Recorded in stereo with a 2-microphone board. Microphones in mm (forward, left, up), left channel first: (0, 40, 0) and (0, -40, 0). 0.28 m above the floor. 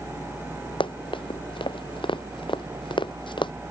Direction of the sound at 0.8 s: 85° left.